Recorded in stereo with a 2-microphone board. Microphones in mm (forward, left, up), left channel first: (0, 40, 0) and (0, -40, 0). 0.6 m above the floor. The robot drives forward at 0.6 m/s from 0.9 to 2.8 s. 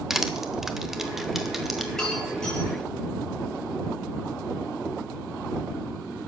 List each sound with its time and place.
0.1 s crushing: 5° right (ahead or behind), 1.1 m
1.9 s breaking glass: 5° left (ahead or behind), 5.5 m